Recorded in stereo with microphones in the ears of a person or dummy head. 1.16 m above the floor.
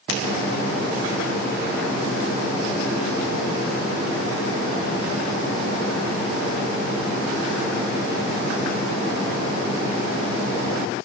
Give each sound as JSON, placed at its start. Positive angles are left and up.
{"t": 0.1, "sound": "a finger snap", "side_deg": 65, "distance_m": 4.5}